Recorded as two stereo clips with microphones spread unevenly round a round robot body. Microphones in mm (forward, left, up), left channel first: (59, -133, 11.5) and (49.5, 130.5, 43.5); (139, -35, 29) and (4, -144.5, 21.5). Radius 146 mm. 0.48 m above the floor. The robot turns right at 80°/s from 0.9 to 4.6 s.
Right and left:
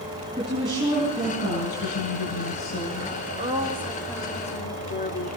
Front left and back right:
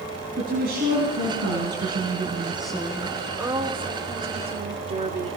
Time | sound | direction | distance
0.4 | a woman speaking | 170° left | 5 m
3.3 | a woman speaking | 140° left | 1.5 m